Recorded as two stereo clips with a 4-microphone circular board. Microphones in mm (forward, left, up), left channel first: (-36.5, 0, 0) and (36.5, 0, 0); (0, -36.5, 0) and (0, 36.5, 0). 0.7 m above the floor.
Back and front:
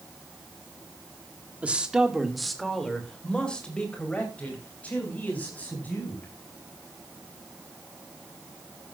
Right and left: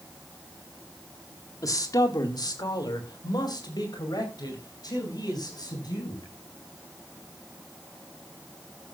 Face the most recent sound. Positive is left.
turn(degrees=-115)